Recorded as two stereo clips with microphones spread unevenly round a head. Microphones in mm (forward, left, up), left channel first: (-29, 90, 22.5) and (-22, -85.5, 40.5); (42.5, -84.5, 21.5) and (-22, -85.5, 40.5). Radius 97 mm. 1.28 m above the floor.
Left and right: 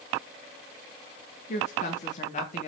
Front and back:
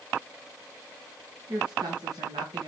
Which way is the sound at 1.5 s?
140° left.